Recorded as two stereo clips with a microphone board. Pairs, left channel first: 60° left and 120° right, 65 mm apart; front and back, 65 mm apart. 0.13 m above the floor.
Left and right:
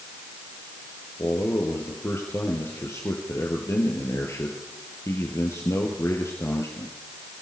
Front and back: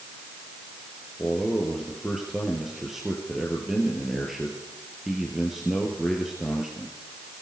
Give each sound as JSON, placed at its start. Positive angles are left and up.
{"t": 1.2, "sound": "a man speaking", "azimuth_deg": 95, "distance_m": 3.5}